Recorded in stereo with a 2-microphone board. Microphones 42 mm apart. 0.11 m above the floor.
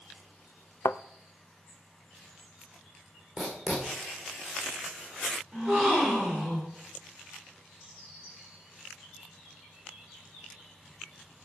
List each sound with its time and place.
0.8 s a thud: 60° left (ahead or behind), 0.5 m
3.4 s writing: 5° right (ahead or behind), 5.5 m
5.5 s a gasp: 5° right (ahead or behind), 7 m